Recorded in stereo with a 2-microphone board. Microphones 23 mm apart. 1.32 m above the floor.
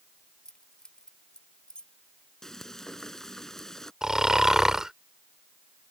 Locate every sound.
0.5 s keys jangling: 30° left (ahead or behind); by 1.9 s 45° left (ahead or behind)
2.4 s frying: 20° left (ahead or behind)
4.0 s snoring: 25° right (ahead or behind)